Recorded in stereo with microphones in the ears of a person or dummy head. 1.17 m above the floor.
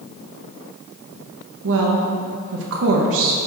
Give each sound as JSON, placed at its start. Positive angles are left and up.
{"t": 1.6, "sound": "a woman speaking", "side_deg": -70, "distance_m": 0.9}